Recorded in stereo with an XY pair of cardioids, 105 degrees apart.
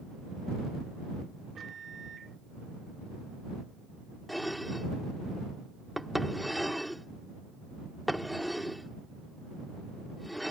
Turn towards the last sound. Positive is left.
turn(degrees=0)